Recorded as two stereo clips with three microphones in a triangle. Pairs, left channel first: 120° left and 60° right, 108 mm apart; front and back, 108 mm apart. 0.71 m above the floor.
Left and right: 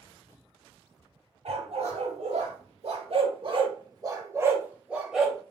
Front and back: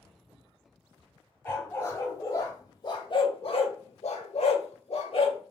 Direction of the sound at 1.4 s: 70° right.